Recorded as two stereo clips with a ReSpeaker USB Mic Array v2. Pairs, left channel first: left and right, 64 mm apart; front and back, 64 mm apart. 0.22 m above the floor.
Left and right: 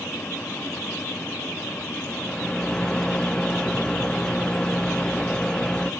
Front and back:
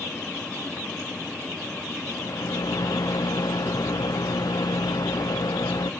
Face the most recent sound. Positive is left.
turn(degrees=15)